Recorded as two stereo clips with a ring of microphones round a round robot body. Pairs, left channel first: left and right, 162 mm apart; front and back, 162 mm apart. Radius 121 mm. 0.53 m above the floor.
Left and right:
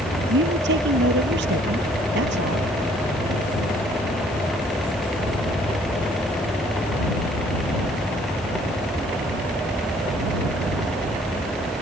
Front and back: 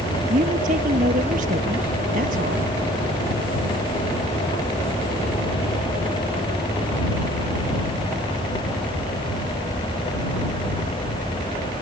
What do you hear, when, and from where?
0.3 s a man speaking: 125° right